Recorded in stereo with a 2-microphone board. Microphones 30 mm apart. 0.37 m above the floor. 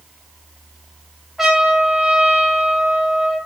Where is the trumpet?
5° right (ahead or behind), 3.5 m.